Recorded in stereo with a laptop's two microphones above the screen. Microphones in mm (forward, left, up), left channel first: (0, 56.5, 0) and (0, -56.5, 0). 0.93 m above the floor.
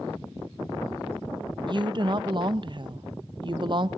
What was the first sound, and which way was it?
A woman speaking, 45° right (ahead or behind).